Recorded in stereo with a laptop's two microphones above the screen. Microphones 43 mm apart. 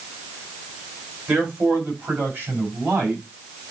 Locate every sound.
1.3 s a man speaking: 35° right (ahead or behind), 5 m; by 3.2 s 45° right (ahead or behind), 6 m